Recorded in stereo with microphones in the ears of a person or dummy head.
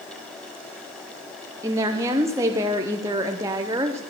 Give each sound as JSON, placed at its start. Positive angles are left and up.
{"t": 1.6, "sound": "a woman speaking", "side_deg": -15, "distance_m": 0.6}